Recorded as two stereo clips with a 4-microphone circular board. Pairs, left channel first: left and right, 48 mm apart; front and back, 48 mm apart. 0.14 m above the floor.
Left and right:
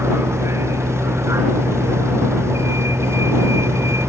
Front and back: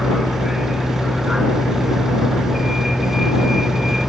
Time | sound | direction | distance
0.0 | a vehicle | 95° right | ?